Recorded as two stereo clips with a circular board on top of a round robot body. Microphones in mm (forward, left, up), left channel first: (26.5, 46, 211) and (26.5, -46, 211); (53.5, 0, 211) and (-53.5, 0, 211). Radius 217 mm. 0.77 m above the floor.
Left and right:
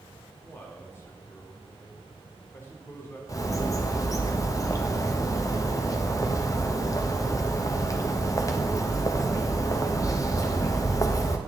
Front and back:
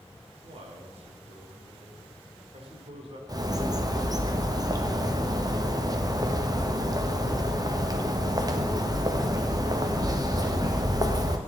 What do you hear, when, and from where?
0.4 s a man speaking: 155° left, 2.5 m
3.3 s a bird: 135° left, 1.5 m